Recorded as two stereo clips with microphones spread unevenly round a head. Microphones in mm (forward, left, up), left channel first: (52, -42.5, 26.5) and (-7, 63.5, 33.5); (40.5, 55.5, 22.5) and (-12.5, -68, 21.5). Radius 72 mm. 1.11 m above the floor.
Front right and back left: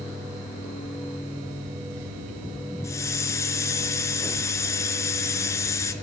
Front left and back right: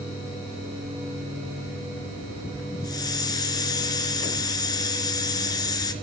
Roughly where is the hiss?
Ahead.